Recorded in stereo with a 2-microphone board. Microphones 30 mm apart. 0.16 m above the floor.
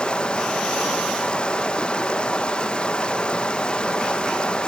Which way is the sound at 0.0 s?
30° left (ahead or behind).